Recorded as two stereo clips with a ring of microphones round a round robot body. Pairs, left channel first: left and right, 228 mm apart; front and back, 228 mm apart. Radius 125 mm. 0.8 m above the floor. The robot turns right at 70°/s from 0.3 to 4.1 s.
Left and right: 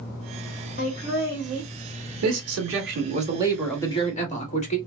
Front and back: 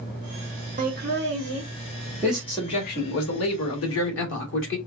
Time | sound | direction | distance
0.8 | laughter | 135° left | 1.6 m
2.2 | a man speaking | 100° right | 1.8 m